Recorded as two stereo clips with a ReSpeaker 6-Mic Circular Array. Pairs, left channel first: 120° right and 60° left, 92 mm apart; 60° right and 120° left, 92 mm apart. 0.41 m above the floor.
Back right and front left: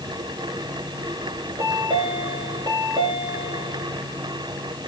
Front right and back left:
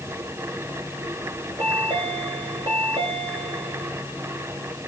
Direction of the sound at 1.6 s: 100° left.